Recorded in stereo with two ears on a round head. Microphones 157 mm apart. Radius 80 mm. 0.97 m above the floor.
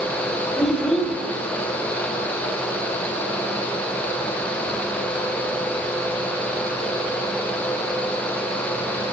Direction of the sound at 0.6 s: 5° left (ahead or behind).